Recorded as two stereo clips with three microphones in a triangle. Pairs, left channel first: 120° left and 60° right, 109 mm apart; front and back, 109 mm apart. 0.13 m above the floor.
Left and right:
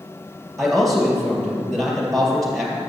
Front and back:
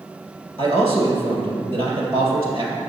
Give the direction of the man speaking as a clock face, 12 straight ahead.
5 o'clock.